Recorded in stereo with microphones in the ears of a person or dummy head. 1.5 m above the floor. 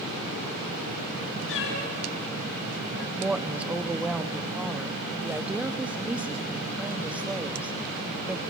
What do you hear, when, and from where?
1.5 s a cat meowing: 60° left (ahead or behind), 4.5 m; by 3.1 s 55° left (ahead or behind), 4 m
3.2 s a woman speaking: 5° right (ahead or behind), 0.8 m